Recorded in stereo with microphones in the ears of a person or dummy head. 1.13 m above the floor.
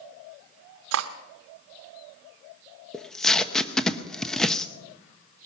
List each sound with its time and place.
0.9 s cutlery clinking: 75° right (ahead or behind), 0.9 m
2.9 s tape being pulled: centre (ahead or behind), 0.8 m